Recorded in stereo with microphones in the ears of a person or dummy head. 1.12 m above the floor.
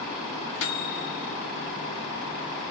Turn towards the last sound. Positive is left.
turn(degrees=65)  # may be behind; listen again after turning